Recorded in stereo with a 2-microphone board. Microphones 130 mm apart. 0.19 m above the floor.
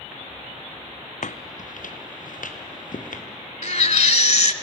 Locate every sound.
1.2 s footsteps: 70° left (ahead or behind), 0.5 m; by 3.2 s 85° left, 3 m
3.6 s a baby crying: 60° left (ahead or behind), 0.7 m